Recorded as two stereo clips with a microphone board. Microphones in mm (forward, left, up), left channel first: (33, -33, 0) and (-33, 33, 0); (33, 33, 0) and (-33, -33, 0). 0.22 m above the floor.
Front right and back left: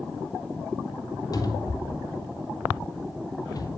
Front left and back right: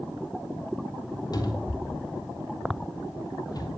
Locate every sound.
1.3 s a cupboard door: 5° left, 3 m